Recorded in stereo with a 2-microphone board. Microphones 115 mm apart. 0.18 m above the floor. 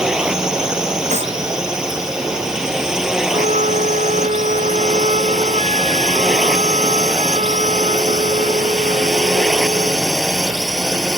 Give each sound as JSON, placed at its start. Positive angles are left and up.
{"t": 0.0, "sound": "a drone", "side_deg": -5}
{"t": 1.1, "sound": "a clap", "side_deg": -85}
{"t": 3.3, "sound": "a flute", "side_deg": -85}